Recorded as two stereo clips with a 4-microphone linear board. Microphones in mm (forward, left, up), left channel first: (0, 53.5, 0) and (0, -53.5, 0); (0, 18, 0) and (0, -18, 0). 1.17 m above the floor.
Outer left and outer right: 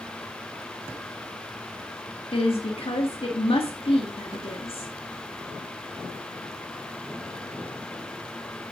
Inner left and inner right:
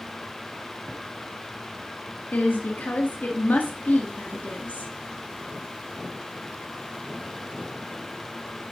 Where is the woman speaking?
60° left (ahead or behind), 1.8 m.